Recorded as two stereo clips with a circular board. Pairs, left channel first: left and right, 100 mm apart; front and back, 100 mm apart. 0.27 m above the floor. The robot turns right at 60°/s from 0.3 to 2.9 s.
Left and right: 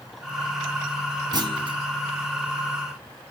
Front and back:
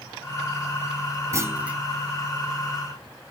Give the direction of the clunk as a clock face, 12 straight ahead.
4 o'clock.